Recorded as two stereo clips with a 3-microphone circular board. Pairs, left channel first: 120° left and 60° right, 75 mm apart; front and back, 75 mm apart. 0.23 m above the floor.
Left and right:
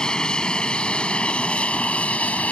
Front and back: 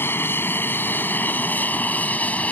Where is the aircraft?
45° left; by 2.5 s 60° left.